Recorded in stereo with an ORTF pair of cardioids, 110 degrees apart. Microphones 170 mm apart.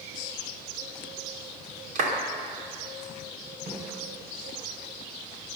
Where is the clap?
50° right, 3 m.